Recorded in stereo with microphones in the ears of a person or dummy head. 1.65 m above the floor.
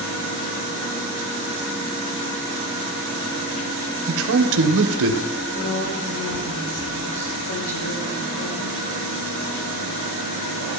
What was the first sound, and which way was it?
A man speaking, 70° right (ahead or behind).